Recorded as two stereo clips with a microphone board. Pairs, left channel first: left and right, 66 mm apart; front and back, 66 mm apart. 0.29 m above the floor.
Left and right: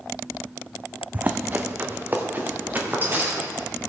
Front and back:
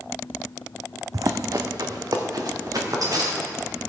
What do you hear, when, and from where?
1.1 s running footsteps: 155° right, 0.7 m; by 3.7 s 150° right, 3.5 m